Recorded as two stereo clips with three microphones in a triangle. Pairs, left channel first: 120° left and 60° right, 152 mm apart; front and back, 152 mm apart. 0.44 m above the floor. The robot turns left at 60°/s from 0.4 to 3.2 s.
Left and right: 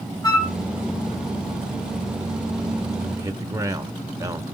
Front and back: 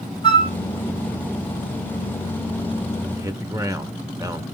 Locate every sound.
0.2 s a flute: 60° left, 1.4 m; by 0.5 s 50° left, 1.4 m
3.2 s a man speaking: 115° right, 1.0 m; by 4.5 s 120° right, 1.0 m